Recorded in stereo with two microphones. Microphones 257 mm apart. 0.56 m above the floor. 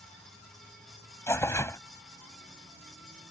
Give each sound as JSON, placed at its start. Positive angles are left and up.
{"t": 1.3, "sound": "tearing paper", "side_deg": 10}